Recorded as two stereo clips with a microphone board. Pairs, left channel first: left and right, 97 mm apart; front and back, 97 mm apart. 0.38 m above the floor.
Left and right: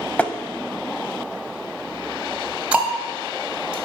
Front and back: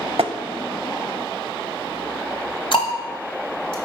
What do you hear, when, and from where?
0.2 s tapping: 165° left, 0.5 m
2.7 s ticking: 15° right, 1.5 m